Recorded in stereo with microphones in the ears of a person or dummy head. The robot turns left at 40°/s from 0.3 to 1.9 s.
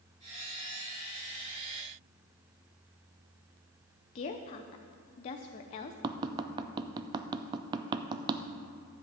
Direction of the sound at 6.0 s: 25° right (ahead or behind).